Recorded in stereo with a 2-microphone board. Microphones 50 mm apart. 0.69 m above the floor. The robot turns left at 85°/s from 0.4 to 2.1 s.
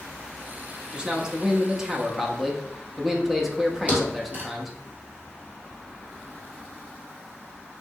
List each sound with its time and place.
0.9 s a man speaking: 20° right (ahead or behind), 0.5 m; by 4.8 s 5° right (ahead or behind), 0.5 m
3.9 s a thud: 25° right (ahead or behind), 1.6 m